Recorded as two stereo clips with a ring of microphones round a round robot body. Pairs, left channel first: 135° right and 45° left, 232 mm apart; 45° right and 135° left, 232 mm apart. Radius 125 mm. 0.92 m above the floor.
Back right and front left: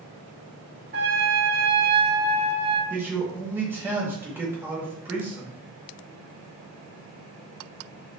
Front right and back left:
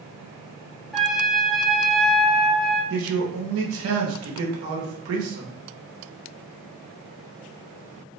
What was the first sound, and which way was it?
A trumpet, 45° left.